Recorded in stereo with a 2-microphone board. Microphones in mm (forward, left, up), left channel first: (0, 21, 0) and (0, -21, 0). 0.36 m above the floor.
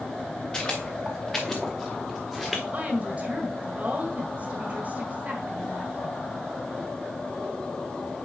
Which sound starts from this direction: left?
Footsteps, at 0.5 s.